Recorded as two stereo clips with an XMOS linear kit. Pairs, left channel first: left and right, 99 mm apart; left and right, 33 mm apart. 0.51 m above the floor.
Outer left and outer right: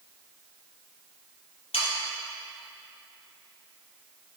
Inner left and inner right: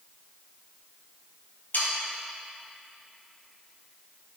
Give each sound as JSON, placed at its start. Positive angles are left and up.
{"t": 1.7, "sound": "sawing", "side_deg": 85, "distance_m": 3.0}